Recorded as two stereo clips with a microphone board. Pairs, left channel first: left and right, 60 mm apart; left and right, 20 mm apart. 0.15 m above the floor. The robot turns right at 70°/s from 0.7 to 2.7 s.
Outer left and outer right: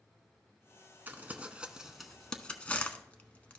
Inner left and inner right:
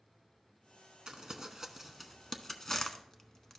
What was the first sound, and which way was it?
Crumpling, 35° right (ahead or behind).